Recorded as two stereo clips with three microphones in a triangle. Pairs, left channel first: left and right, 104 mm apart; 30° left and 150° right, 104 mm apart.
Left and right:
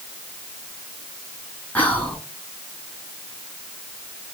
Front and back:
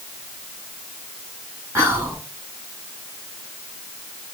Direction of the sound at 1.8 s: 155° left.